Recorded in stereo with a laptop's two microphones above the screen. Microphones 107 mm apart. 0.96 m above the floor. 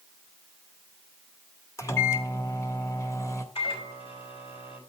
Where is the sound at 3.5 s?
60° left (ahead or behind), 5 m.